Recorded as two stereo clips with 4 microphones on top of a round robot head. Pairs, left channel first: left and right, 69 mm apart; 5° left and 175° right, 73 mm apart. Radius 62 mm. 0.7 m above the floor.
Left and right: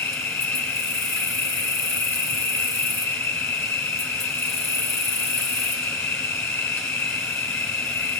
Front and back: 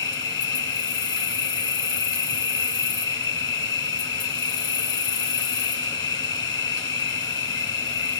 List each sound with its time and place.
0.0 s an insect: 35° left, 1.4 m